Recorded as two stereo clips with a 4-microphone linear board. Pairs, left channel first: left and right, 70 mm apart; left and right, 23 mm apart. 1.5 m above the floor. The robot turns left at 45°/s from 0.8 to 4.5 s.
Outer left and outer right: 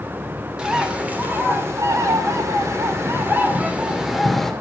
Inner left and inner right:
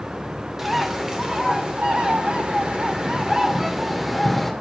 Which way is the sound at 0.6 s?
20° right.